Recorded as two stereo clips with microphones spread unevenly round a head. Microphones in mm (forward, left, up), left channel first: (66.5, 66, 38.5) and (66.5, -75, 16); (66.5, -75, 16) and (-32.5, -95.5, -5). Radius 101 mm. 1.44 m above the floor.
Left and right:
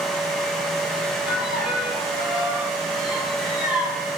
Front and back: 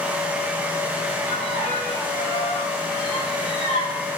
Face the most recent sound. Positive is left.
turn(degrees=-5)